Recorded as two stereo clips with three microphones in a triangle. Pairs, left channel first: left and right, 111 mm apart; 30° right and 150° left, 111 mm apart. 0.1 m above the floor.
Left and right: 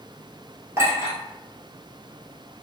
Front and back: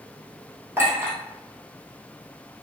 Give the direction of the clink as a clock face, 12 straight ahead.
5 o'clock.